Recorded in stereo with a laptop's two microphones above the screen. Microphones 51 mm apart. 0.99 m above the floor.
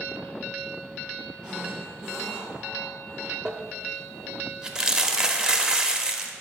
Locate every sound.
1.4 s a zipper: 15° right (ahead or behind), 1.5 m
3.5 s crumpling: 15° right (ahead or behind), 0.6 m